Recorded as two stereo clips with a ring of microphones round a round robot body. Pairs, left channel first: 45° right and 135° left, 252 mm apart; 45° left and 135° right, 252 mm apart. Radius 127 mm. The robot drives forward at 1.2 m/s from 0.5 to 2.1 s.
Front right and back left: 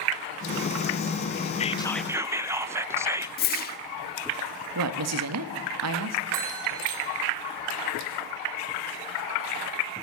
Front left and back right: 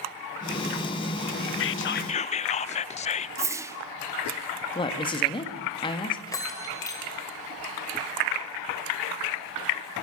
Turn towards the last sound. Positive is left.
turn(degrees=120)